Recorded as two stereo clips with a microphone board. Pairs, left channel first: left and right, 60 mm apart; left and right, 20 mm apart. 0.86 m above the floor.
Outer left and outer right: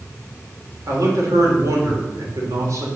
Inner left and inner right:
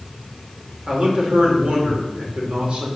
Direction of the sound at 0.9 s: 60° right (ahead or behind).